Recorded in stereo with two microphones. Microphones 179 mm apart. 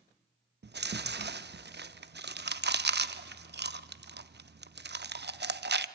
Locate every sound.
0.6 s chewing: 65° right (ahead or behind), 0.7 m